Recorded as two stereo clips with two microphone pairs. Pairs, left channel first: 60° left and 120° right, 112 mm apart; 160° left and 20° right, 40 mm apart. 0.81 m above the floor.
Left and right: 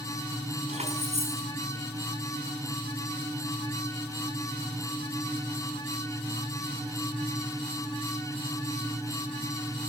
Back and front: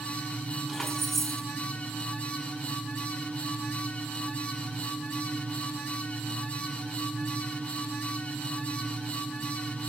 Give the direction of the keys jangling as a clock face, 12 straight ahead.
4 o'clock.